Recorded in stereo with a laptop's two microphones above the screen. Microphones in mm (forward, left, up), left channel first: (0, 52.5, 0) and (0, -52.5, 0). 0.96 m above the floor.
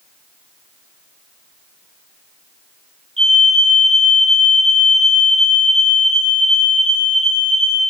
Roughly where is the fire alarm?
Right.